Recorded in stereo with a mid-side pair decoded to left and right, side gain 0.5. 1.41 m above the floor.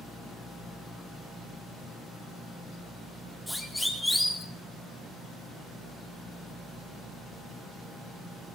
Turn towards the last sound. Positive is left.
turn(degrees=10)